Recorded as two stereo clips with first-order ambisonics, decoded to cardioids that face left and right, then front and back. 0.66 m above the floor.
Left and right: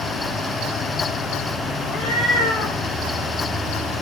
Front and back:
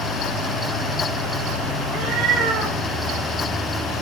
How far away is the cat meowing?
About 5.5 m.